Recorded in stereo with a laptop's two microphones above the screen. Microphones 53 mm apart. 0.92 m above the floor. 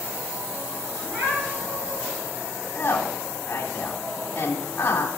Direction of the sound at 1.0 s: 40° right (ahead or behind).